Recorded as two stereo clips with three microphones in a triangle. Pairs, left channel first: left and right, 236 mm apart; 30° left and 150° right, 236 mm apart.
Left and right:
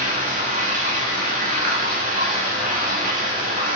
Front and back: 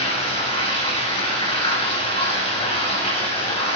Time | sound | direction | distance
0.0 | running water | 35° right | 0.9 m